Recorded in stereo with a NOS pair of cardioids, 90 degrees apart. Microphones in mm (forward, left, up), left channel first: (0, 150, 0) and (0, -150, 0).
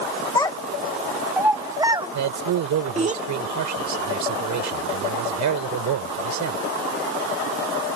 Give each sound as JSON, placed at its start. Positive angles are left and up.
{"t": 0.3, "sound": "a child speaking", "azimuth_deg": 15}
{"t": 2.1, "sound": "a man speaking", "azimuth_deg": -70}